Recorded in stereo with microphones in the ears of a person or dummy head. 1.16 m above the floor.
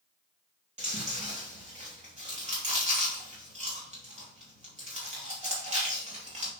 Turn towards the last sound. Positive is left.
turn(degrees=-35)  # may be behind; listen again after turning